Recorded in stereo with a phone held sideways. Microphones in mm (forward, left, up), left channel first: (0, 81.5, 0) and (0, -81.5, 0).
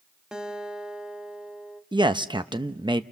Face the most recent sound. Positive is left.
turn(degrees=-30)  # may be behind; listen again after turning